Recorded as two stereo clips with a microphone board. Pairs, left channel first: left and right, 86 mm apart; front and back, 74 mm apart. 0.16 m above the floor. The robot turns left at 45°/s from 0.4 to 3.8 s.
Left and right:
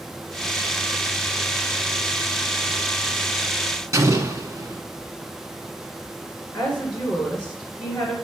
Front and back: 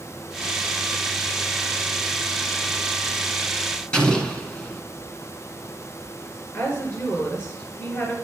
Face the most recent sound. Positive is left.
turn(degrees=30)